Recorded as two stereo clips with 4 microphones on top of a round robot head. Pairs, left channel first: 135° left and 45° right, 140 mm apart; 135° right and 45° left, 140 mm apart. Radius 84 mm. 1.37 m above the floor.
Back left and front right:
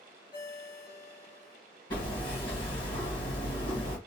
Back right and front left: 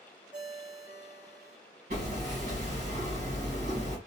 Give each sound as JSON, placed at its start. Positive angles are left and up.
{"t": 0.3, "sound": "a ringtone", "azimuth_deg": 115, "distance_m": 2.0}
{"t": 1.9, "sound": "hammering", "azimuth_deg": 80, "distance_m": 1.9}